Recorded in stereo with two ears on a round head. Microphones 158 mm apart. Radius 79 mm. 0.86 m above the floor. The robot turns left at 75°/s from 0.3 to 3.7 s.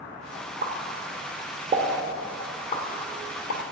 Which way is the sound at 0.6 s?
60° right (ahead or behind).